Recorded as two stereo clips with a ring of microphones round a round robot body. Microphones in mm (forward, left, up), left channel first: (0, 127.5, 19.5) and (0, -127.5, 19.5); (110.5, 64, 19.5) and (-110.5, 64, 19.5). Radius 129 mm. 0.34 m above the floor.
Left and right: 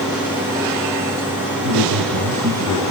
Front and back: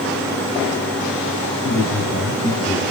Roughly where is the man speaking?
Right.